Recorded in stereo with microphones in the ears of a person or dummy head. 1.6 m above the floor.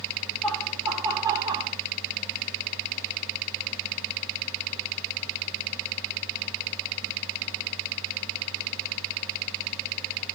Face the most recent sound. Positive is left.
turn(degrees=-30)  # may be behind; listen again after turning